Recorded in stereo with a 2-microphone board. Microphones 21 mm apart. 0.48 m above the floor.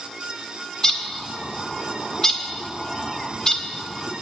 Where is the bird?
25° left (ahead or behind), 1.2 m.